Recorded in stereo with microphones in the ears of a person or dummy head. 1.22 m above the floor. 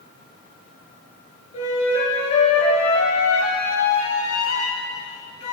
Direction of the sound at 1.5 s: 35° left (ahead or behind).